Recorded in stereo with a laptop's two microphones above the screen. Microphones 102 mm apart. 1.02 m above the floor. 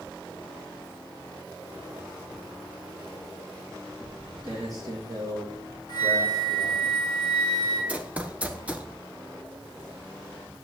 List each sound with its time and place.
4.0 s footsteps: 45° right (ahead or behind), 6.5 m; by 6.9 s 55° right (ahead or behind), 6 m
5.9 s a flute: 50° left (ahead or behind), 7 m
7.9 s running footsteps: 15° right (ahead or behind), 1.0 m